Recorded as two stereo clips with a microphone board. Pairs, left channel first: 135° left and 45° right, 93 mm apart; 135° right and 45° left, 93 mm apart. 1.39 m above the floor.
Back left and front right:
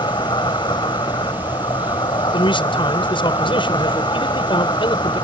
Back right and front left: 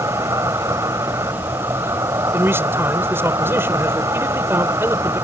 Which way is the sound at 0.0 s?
100° left.